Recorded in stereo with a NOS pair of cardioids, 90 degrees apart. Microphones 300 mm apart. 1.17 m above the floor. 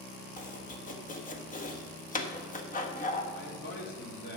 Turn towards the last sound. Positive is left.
turn(degrees=40)